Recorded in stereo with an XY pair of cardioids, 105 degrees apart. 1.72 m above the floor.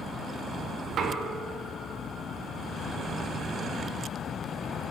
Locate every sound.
0.9 s knocking: 65° right, 1.1 m